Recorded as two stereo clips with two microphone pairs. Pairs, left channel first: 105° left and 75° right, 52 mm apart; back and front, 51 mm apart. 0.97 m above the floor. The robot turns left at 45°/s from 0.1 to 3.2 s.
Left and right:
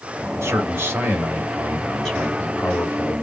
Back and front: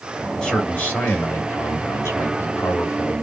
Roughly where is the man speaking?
Right.